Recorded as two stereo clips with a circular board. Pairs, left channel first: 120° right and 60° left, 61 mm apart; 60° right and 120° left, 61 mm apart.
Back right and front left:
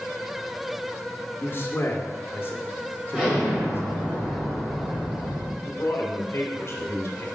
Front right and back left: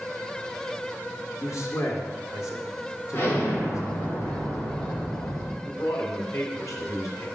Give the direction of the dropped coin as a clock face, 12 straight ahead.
I don't hear a dropped coin.